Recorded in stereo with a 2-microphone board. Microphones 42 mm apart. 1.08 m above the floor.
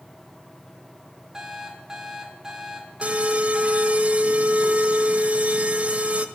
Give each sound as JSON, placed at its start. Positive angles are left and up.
{"t": 1.3, "sound": "an alarm clock", "side_deg": -10, "distance_m": 1.3}
{"t": 3.0, "sound": "an alarm", "side_deg": -30, "distance_m": 0.6}